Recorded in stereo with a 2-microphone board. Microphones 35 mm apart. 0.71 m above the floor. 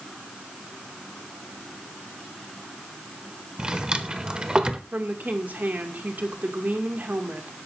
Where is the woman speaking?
65° right (ahead or behind), 2.0 m.